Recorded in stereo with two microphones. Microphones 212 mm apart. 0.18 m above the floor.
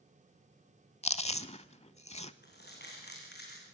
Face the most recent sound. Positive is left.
turn(degrees=50)  # may be behind; listen again after turning